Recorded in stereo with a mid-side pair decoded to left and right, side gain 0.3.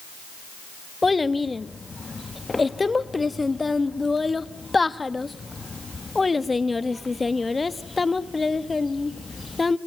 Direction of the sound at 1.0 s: 30° left.